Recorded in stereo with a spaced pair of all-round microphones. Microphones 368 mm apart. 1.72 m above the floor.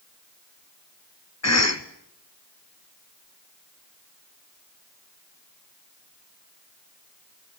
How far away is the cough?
About 1.1 m.